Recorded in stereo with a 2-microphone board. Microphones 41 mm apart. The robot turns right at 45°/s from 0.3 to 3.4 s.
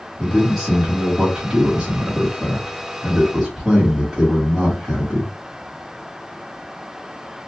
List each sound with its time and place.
0.2 s a man speaking: 10° right (ahead or behind), 1.5 m; by 5.3 s 5° right (ahead or behind), 1.5 m